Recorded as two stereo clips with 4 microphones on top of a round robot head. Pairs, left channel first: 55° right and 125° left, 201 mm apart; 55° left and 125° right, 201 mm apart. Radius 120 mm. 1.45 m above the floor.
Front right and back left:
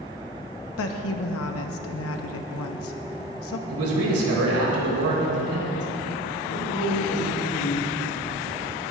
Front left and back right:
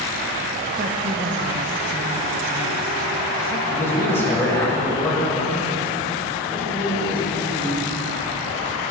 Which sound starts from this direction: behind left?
A man speaking, at 3.7 s.